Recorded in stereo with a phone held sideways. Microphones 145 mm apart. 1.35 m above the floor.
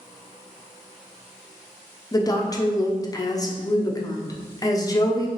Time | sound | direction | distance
2.1 | a woman speaking | 25° left (ahead or behind) | 0.6 m